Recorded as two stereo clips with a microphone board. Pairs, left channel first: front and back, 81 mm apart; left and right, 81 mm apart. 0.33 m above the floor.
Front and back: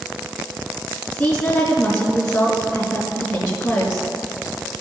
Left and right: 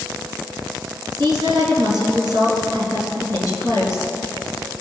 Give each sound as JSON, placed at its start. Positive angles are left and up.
{"t": 1.1, "sound": "a woman speaking", "azimuth_deg": -75, "distance_m": 4.5}